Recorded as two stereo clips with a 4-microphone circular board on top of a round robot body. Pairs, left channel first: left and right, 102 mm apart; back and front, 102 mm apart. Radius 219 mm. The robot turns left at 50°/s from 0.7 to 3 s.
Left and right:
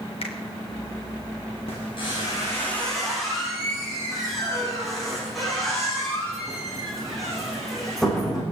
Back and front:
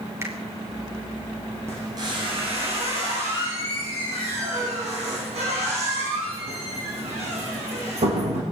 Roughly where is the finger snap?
Ahead left.